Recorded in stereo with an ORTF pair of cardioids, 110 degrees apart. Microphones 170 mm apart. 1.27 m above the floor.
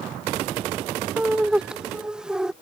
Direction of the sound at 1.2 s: 5° right.